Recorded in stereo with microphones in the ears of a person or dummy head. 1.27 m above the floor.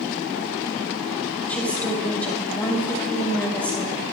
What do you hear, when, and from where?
1.5 s a woman speaking: 15° left (ahead or behind), 6 m